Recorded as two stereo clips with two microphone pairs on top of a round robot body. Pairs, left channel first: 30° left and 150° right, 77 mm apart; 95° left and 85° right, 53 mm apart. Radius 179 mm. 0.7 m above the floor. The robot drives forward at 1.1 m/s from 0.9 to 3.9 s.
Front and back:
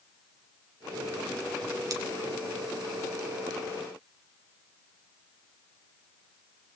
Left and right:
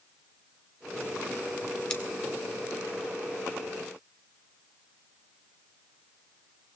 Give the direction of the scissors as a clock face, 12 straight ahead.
6 o'clock.